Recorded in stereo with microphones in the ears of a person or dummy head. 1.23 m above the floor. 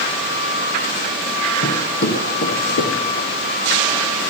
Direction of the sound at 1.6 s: 50° left (ahead or behind).